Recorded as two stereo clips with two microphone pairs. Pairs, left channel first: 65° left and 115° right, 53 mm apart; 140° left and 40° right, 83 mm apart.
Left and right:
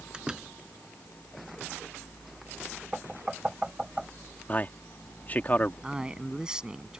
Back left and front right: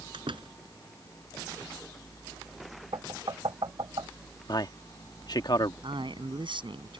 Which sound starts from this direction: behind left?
A man speaking, at 4.5 s.